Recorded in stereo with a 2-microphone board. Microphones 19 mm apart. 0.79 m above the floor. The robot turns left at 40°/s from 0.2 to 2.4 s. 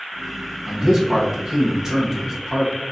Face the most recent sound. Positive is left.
turn(degrees=-20)  # may be behind; listen again after turning